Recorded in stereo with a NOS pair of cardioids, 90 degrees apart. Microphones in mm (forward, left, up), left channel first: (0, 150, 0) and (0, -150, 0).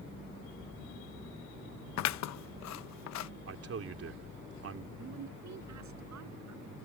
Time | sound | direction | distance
2.0 | scissors | 65° left | ?
3.5 | a man speaking | 50° right | ?
5.0 | a woman speaking | 65° right | ?